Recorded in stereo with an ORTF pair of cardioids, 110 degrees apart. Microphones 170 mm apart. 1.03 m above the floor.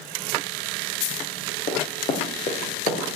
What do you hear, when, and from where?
1.7 s running footsteps: 55° left, 4.5 m